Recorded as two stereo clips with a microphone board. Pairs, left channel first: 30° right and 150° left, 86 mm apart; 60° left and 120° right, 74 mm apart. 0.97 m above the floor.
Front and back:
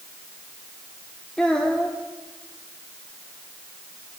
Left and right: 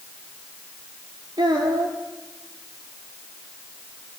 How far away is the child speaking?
About 1.7 m.